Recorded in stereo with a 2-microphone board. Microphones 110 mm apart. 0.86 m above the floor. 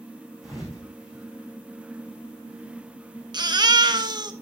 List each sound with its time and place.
0.4 s a thud: centre (ahead or behind), 4.5 m
3.3 s a baby crying: 40° right (ahead or behind), 0.8 m